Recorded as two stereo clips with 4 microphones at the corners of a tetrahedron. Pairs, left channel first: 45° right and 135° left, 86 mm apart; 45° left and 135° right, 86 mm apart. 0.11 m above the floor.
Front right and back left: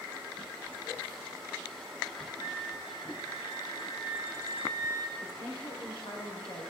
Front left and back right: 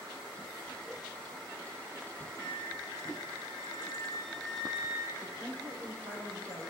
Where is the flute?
35° right, 4 m.